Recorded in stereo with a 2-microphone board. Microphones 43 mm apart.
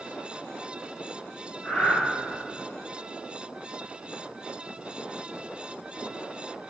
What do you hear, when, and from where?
1.6 s breathing: 35° left (ahead or behind), 3 m